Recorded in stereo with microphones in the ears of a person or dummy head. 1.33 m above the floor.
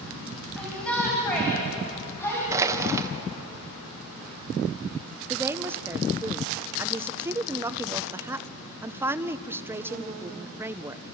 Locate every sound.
0.6 s a shout: 5° left (ahead or behind), 7 m; by 2.4 s 15° left (ahead or behind), 7.5 m
2.5 s crushing: 20° right (ahead or behind), 1.6 m
5.3 s a woman speaking: 15° right (ahead or behind), 0.7 m